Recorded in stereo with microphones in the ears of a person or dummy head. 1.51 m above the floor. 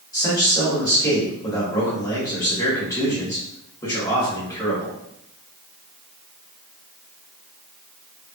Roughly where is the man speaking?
Centre.